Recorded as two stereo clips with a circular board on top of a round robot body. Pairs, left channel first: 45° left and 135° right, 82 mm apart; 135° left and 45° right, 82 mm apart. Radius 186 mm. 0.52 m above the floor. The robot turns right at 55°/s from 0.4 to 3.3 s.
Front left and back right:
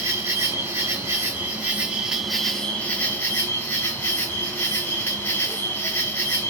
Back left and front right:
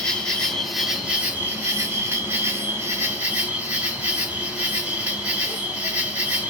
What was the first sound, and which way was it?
An insect, 150° right.